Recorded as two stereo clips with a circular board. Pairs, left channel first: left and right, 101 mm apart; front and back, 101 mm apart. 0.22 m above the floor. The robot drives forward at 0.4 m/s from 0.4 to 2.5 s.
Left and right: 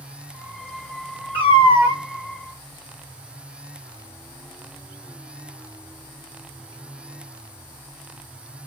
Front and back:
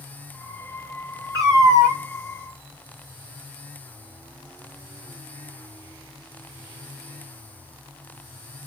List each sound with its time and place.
1.3 s a cat meowing: 120° left, 1.2 m; by 2.0 s 130° left, 1.4 m